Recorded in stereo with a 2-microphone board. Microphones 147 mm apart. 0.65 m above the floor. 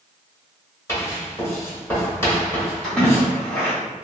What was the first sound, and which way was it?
Writing, 20° left (ahead or behind).